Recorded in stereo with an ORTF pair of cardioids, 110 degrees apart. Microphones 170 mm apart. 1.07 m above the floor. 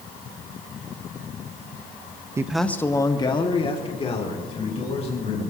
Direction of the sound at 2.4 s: 20° right.